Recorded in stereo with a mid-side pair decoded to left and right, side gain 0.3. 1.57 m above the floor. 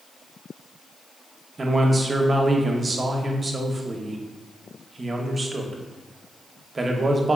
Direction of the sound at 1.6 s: 40° right.